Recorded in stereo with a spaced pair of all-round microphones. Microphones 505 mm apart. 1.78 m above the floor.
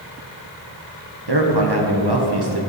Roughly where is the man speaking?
Right.